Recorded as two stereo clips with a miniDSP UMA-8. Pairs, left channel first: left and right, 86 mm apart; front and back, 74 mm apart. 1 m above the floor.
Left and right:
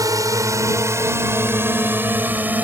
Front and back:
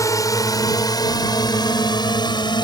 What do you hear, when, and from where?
0.0 s a drone: 45° right; by 2.6 s 20° right